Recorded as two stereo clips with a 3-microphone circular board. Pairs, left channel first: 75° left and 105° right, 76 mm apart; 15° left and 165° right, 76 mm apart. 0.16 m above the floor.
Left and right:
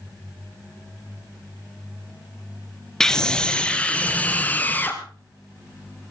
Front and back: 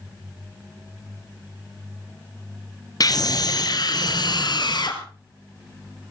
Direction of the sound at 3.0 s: 10° right.